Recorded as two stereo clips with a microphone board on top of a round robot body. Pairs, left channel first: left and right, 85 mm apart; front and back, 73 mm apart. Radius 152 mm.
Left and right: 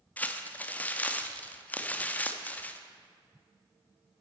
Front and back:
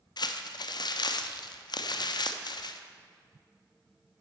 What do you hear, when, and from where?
0.2 s crumpling: 20° left, 0.7 m